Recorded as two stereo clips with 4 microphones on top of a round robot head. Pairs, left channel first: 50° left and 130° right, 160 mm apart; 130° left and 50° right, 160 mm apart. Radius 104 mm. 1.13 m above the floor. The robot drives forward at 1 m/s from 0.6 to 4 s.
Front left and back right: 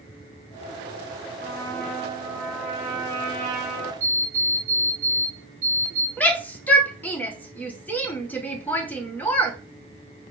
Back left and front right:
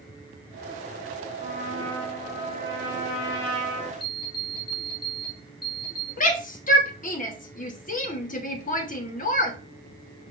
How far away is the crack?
I don't hear a crack.